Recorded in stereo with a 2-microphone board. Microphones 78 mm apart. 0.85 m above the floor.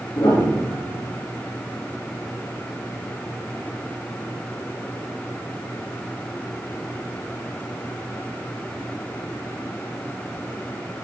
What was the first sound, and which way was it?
A piano, 55° left (ahead or behind).